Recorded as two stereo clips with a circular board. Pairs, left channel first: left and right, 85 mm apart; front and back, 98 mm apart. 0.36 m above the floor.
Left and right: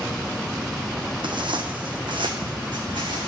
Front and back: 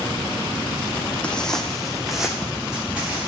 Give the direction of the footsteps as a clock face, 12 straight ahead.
3 o'clock.